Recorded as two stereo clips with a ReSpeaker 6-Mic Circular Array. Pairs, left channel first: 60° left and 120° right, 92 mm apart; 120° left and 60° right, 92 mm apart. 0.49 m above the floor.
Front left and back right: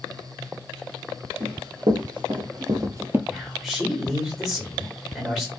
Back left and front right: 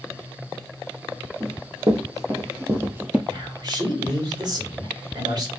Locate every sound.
1.4 s running footsteps: 110° right, 1.4 m; by 3.2 s 115° right, 0.5 m
3.3 s a man speaking: 35° right, 1.5 m